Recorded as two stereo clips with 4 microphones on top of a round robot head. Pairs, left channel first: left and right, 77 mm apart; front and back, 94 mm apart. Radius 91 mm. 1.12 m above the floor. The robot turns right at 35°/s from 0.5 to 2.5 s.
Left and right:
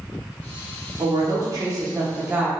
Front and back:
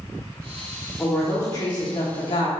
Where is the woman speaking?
70° right, 1.0 m; by 2.5 s 15° right, 1.0 m.